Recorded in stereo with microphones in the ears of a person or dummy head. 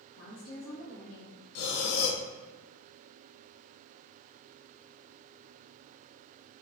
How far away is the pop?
No pop in this recording.